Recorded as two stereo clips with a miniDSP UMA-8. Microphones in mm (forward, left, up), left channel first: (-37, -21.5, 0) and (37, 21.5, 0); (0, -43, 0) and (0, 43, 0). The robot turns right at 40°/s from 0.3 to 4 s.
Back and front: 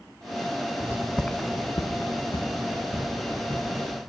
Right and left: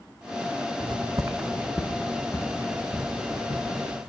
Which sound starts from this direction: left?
Footsteps, at 0.8 s.